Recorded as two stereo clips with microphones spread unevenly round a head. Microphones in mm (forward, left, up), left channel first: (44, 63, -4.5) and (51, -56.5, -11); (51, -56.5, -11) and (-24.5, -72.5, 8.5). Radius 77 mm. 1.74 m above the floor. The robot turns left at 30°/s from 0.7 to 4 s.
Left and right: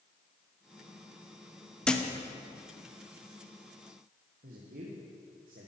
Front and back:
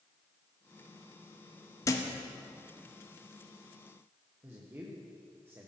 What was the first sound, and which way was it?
A thud, 25° left.